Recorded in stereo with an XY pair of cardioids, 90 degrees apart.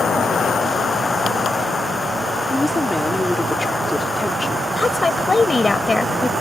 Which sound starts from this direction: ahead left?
A woman speaking, at 4.8 s.